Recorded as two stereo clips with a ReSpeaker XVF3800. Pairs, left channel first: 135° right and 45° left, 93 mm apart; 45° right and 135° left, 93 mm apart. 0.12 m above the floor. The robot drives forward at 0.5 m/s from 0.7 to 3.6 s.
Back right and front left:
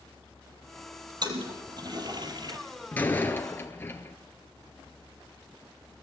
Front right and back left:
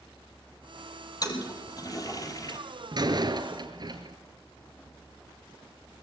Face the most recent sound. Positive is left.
turn(degrees=160)